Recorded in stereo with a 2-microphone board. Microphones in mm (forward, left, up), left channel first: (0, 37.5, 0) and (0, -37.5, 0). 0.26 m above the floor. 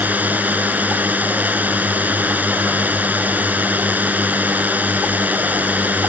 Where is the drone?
20° right (ahead or behind).